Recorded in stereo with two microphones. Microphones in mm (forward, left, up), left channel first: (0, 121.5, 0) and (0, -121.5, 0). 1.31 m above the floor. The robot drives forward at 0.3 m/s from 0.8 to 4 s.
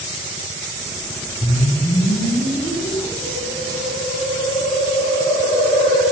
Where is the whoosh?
40° left (ahead or behind), 9 m; by 6.0 s 35° left (ahead or behind), 9.5 m.